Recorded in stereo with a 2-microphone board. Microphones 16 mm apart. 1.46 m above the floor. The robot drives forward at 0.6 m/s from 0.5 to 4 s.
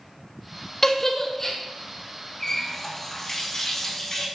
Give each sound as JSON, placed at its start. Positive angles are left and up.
{"t": 0.8, "sound": "a giggle", "side_deg": 25, "distance_m": 0.8}
{"t": 2.4, "sound": "a running tap", "side_deg": 30, "distance_m": 1.4}